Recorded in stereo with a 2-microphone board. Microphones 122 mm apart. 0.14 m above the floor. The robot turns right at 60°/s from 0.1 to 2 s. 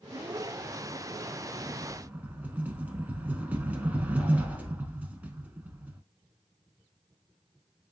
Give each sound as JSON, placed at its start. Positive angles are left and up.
{"t": 1.6, "sound": "a rattle", "side_deg": -5, "distance_m": 0.6}